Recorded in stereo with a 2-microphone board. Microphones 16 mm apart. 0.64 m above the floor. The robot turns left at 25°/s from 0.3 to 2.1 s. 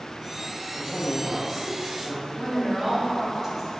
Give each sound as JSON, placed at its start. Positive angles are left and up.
{"t": 0.7, "sound": "a woman speaking", "azimuth_deg": 50, "distance_m": 1.2}
{"t": 2.4, "sound": "a woman speaking", "side_deg": -5, "distance_m": 1.2}